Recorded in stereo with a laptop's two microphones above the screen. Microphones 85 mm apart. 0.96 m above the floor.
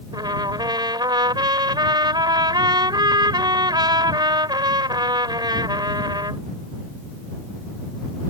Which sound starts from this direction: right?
A trumpet, at 0.1 s.